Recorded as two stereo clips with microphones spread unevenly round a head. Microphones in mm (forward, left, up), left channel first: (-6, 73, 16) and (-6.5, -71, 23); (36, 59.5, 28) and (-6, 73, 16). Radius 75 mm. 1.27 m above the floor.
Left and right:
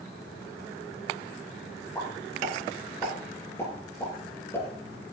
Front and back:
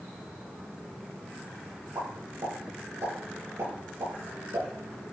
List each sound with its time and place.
1.9 s a pop: 160° left, 10 m